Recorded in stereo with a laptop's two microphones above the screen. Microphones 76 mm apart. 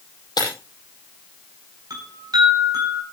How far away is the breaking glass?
About 9 m.